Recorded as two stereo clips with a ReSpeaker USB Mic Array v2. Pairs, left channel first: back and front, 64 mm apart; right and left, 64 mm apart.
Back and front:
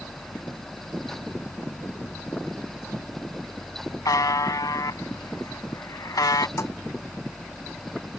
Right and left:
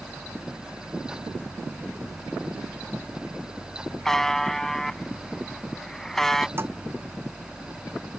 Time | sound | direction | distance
4.0 | a buzzer | 175° right | ?
6.6 | a thud | 140° left | ?